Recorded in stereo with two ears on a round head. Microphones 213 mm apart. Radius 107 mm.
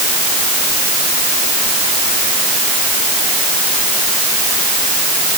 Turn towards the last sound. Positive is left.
No sound to turn to.